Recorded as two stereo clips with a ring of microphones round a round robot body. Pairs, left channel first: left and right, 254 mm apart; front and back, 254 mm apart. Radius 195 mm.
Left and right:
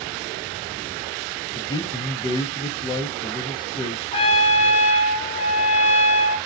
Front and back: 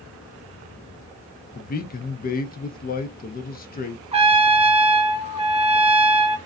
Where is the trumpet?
130° left, 0.6 m.